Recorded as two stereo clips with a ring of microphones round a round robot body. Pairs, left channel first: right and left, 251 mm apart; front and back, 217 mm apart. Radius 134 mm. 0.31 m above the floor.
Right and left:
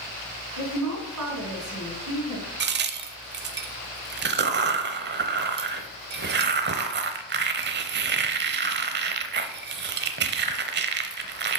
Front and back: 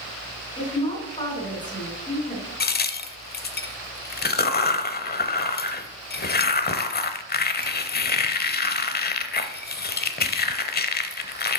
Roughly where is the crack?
Ahead left.